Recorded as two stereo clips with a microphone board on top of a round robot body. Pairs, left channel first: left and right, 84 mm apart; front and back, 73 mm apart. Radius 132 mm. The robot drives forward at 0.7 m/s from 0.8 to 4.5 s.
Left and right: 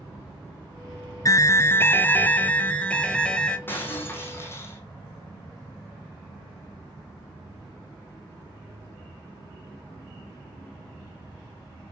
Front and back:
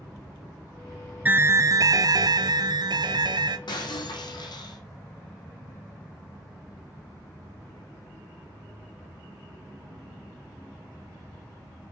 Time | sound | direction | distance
1.2 | an alarm | 120° left | 0.6 m
3.7 | breaking glass | 25° left | 3.5 m